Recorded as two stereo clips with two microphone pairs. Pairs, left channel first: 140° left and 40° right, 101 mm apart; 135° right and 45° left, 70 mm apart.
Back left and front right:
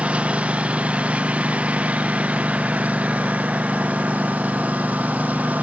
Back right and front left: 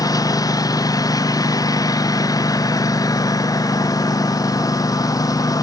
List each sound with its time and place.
0.0 s a lawn mower: 115° right